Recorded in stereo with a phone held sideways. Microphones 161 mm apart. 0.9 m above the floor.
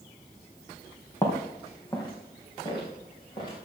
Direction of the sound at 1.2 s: 20° left (ahead or behind).